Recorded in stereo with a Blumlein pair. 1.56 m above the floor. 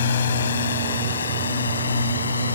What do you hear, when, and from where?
0.0 s a drone: 65° left; by 2.6 s 75° left